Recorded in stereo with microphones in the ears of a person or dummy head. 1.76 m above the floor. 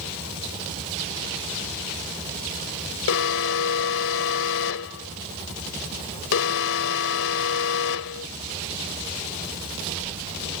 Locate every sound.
3.1 s an alarm: 80° left